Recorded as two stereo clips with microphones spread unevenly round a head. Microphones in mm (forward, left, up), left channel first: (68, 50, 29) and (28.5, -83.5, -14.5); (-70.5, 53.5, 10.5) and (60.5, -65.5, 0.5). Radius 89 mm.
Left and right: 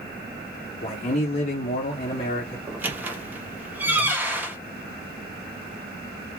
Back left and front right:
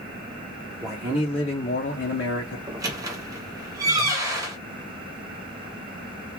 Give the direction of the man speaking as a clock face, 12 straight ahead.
11 o'clock.